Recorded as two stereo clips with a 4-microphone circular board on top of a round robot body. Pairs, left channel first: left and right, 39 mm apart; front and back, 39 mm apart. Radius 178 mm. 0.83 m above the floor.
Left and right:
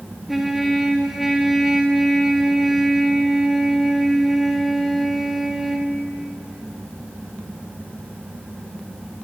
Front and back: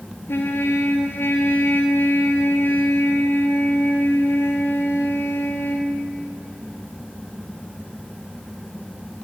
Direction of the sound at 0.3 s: Straight ahead.